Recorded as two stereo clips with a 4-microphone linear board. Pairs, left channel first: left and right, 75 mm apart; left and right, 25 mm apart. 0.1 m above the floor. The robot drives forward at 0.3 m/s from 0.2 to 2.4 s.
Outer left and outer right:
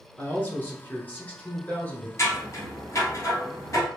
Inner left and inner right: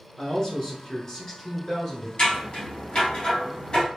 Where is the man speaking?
25° left (ahead or behind), 1.1 m; by 2.1 s 20° left (ahead or behind), 1.2 m.